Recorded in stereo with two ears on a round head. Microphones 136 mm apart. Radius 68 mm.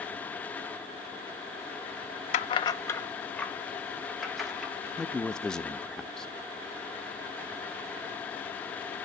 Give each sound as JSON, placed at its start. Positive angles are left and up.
{"t": 2.3, "sound": "keys jangling", "side_deg": 50, "distance_m": 0.5}
{"t": 5.0, "sound": "a man speaking", "side_deg": 5, "distance_m": 0.5}